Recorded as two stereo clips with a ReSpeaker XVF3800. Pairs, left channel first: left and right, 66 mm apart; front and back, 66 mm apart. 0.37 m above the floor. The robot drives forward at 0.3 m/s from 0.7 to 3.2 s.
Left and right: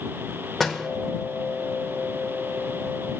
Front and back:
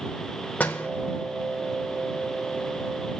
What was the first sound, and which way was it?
A door slam, 10° left.